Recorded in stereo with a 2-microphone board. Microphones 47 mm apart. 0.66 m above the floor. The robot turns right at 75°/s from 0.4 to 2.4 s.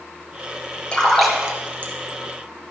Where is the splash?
25° left (ahead or behind), 3.5 m; by 1.9 s 50° right (ahead or behind), 3.5 m.